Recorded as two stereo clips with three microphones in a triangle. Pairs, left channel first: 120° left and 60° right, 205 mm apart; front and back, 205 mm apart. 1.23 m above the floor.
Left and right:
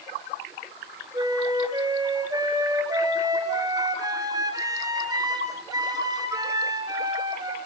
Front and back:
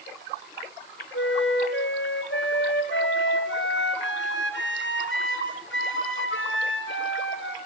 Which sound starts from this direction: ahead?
A flute, at 1.1 s.